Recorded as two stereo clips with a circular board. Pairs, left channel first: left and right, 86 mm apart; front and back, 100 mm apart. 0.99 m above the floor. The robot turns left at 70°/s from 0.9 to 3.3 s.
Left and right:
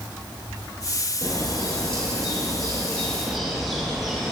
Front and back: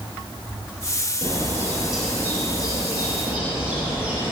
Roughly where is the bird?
Behind left.